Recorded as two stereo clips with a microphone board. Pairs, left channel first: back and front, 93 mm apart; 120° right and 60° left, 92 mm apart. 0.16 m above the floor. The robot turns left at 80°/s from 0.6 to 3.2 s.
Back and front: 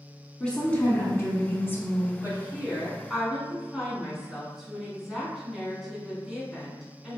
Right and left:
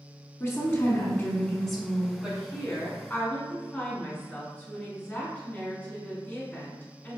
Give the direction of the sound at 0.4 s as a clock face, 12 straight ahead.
4 o'clock.